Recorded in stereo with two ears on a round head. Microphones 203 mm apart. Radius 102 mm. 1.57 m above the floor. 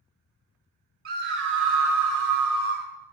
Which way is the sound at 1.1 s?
45° right (ahead or behind).